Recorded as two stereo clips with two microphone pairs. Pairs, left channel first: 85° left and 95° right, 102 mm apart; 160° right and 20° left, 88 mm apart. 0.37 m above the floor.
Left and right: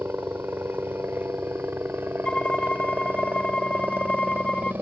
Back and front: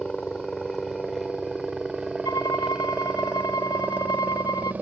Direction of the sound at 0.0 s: 90° right.